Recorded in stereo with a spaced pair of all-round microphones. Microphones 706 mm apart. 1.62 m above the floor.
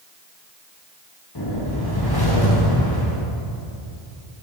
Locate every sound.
1.4 s a whoosh: 30° left (ahead or behind), 1.4 m